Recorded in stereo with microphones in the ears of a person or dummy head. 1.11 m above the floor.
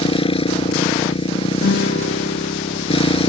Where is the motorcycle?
30° left (ahead or behind).